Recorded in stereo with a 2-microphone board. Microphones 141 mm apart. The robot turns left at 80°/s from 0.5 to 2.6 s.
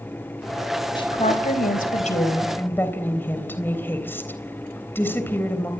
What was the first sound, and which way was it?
A woman speaking, 150° left.